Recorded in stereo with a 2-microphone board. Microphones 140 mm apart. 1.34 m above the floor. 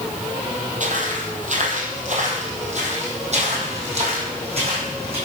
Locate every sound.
0.8 s footsteps: 60° right (ahead or behind), 2.5 m; by 5.2 s 45° right (ahead or behind), 4.5 m